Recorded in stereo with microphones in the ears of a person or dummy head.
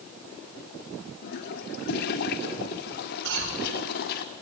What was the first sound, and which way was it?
A toilet flushing, 55° left (ahead or behind).